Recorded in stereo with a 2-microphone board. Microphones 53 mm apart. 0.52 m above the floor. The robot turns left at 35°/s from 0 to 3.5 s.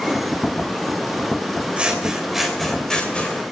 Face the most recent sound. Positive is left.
turn(degrees=145)